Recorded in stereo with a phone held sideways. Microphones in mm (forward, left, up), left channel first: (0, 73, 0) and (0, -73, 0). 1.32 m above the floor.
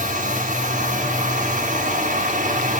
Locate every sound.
0.0 s a machine running: 60° right (ahead or behind), 1.4 m